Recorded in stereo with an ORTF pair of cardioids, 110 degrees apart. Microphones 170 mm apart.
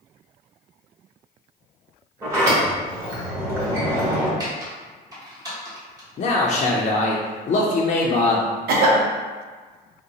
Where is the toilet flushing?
No toilet flushing in this recording.